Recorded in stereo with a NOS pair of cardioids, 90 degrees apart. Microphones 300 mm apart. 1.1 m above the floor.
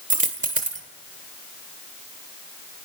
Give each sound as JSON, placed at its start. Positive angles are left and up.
{"t": 0.1, "sound": "a dropped coin", "azimuth_deg": -25, "distance_m": 1.9}